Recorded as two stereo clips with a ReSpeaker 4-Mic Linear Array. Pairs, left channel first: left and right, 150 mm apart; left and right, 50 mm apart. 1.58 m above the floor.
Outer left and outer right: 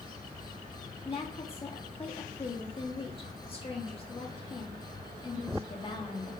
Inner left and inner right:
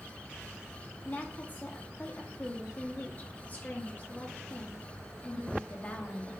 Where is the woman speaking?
35° left (ahead or behind), 1.6 m.